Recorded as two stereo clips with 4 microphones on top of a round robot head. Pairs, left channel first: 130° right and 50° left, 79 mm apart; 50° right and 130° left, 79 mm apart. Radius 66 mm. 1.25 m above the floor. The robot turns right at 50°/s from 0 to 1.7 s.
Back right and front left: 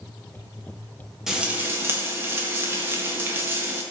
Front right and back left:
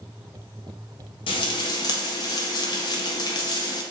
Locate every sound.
1.3 s frying: 35° right, 1.5 m; by 3.8 s 10° right, 1.5 m